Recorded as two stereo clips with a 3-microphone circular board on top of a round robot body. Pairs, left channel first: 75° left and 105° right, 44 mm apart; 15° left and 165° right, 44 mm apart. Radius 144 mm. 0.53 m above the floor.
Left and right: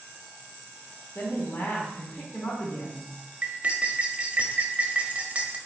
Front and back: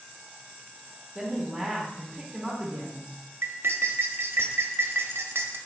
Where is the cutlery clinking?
160° right, 0.6 m.